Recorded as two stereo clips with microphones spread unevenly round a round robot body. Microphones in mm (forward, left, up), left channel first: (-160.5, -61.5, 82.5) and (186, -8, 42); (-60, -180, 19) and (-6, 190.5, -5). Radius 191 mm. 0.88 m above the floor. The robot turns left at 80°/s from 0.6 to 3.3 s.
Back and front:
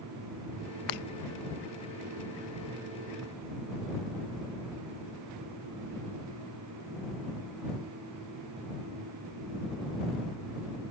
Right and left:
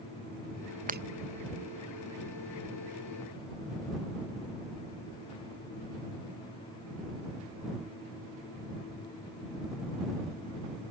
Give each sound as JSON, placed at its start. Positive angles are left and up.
{"t": 0.9, "sound": "breaking glass", "azimuth_deg": 155}